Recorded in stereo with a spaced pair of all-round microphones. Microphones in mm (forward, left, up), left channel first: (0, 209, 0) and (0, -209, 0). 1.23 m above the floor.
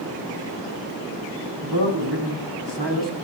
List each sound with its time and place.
1.6 s a man speaking: 70° right (ahead or behind), 9.5 m; by 3.2 s 75° right (ahead or behind), 9 m